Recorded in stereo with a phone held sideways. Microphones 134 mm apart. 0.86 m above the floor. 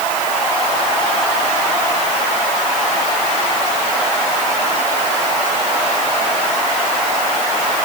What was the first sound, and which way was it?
Only background noise.